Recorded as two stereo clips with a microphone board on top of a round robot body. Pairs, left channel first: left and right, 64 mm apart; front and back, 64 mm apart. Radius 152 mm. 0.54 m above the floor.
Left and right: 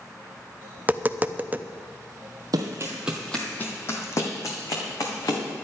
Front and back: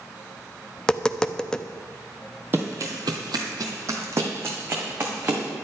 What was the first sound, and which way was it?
Tapping, 65° right.